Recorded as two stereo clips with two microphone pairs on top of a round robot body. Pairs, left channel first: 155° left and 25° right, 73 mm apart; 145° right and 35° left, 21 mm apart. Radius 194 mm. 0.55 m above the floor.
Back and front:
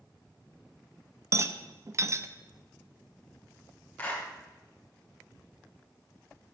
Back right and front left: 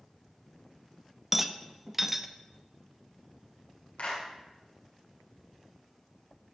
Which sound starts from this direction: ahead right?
A rattle, at 1.3 s.